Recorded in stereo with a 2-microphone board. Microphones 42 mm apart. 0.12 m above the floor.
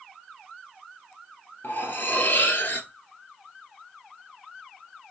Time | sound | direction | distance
1.6 | cutlery clinking | 50° left (ahead or behind) | 1.6 m